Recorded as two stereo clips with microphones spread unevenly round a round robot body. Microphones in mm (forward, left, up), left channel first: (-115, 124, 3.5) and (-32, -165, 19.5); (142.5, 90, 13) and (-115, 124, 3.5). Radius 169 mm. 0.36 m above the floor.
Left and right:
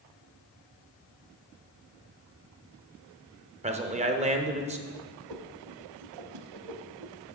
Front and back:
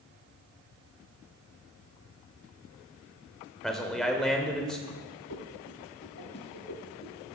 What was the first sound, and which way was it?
A man speaking, 95° right.